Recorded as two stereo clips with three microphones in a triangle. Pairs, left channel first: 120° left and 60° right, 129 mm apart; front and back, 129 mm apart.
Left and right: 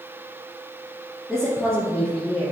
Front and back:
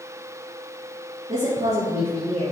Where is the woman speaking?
145° right, 3.5 m; by 2.5 s 160° right, 4 m.